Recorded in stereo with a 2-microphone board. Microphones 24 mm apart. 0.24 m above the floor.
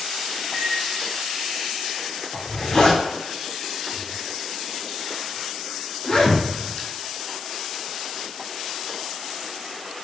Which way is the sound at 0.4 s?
20° right (ahead or behind).